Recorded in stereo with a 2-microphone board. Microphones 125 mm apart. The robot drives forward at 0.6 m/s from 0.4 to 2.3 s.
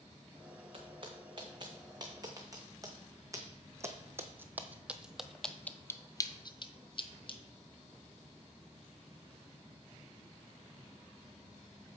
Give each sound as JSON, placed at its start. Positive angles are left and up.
{"t": 0.7, "sound": "footsteps", "side_deg": -45, "distance_m": 2.0}